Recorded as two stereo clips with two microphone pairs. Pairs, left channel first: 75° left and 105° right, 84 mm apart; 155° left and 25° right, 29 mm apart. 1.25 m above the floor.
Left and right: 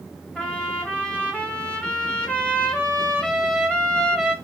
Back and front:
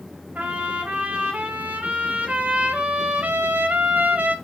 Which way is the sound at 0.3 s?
Straight ahead.